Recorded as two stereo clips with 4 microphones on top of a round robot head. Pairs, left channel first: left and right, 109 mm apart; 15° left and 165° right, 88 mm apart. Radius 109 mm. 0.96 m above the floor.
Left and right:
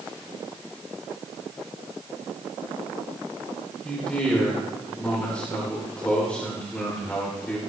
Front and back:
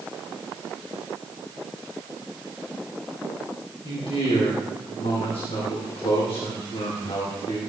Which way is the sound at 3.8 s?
10° left.